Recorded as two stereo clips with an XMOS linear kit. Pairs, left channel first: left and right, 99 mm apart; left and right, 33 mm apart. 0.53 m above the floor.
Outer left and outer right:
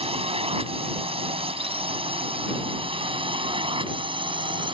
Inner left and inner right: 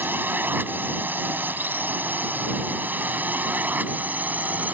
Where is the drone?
70° right (ahead or behind); by 4.8 s 55° right (ahead or behind).